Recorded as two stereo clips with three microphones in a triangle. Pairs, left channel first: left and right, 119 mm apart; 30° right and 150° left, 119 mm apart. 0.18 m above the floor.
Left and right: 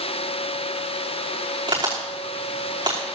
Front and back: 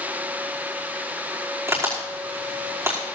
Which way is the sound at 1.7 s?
140° right.